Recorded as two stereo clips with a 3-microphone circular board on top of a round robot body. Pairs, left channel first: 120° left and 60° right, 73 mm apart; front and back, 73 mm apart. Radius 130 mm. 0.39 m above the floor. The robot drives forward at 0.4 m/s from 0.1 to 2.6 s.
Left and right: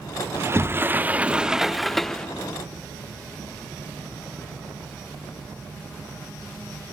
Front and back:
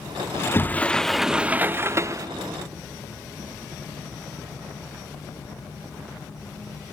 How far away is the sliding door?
About 0.6 m.